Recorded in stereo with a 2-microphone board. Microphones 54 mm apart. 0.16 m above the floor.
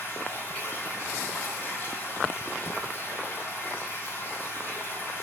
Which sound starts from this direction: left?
Running water, at 0.0 s.